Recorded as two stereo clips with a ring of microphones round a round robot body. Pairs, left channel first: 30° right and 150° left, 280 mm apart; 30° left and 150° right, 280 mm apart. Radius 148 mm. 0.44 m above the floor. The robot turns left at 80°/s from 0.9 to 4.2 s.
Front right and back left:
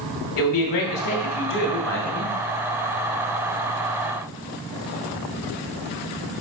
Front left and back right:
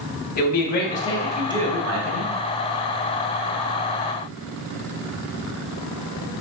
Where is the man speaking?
25° right, 2.5 m; by 2.3 s 140° right, 2.5 m.